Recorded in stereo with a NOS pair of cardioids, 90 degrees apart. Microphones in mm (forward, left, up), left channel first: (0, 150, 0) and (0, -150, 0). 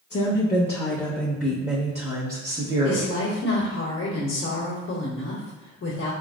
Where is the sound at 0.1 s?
40° left, 1.0 m; by 3.2 s 45° right, 1.4 m.